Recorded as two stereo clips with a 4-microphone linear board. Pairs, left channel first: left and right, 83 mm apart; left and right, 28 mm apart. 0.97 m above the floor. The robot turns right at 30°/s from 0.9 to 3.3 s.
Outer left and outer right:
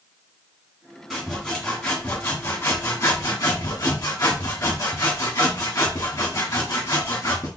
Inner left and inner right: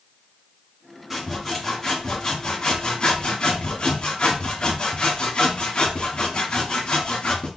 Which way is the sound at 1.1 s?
Straight ahead.